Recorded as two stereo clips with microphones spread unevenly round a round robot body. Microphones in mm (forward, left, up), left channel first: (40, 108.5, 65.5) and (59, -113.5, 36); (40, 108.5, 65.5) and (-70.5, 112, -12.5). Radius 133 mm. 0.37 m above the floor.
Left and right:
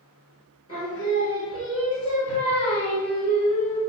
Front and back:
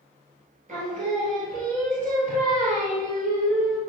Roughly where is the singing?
Behind.